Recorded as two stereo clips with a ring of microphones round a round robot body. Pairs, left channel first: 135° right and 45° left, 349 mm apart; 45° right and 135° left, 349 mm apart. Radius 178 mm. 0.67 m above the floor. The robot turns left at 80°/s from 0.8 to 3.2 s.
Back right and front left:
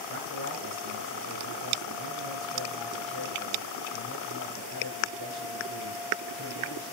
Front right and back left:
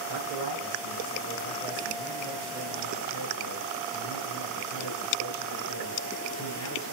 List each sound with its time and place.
0.1 s a man speaking: 100° left, 8 m; by 6.9 s 90° right, 8 m